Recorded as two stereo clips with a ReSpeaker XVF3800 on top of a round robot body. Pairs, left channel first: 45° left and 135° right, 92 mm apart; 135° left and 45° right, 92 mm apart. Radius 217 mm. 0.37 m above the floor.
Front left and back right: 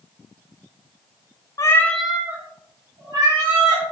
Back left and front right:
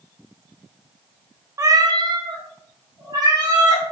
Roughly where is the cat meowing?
Ahead.